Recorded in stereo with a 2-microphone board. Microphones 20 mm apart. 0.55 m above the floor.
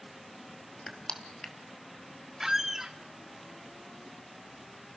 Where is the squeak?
20° right (ahead or behind), 1.0 m.